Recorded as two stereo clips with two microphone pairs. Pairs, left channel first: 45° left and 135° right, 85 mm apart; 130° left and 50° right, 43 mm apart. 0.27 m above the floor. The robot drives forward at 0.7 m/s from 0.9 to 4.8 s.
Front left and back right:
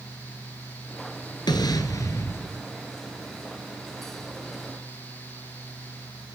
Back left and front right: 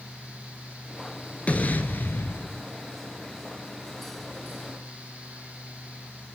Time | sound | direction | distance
1.5 | an explosion | 75° left | 1.4 m